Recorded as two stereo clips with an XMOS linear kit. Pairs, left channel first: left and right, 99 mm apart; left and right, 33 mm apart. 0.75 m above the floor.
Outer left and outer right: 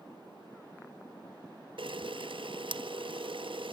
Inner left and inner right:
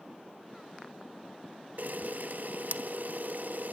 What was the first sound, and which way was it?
A camera shutter, 55° right (ahead or behind).